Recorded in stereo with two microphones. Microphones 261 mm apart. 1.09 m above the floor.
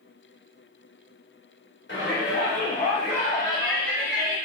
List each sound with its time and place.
1.9 s a shout: 40° left (ahead or behind), 2 m; by 4.4 s 5° left (ahead or behind), 2 m